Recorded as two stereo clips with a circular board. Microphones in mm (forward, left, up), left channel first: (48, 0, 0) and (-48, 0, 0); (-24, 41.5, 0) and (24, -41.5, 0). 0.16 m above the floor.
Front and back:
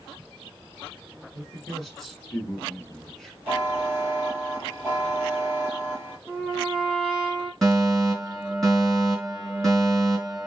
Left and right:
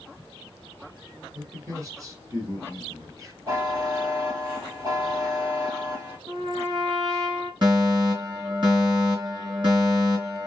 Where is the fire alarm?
85° right, 3 m.